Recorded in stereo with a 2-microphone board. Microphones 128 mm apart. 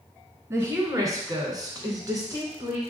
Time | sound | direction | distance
0.5 | a woman speaking | 25° right (ahead or behind) | 1.4 m